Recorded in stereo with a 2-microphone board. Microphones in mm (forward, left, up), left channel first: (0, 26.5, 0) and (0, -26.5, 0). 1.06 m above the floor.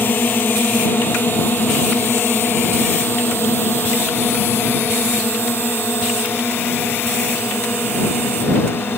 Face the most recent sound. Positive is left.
turn(degrees=50)  # may be behind; listen again after turning